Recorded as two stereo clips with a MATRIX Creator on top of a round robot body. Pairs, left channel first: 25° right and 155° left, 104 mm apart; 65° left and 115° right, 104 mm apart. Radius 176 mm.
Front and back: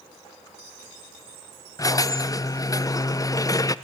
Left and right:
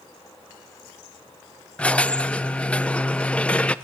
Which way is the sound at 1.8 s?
5° right.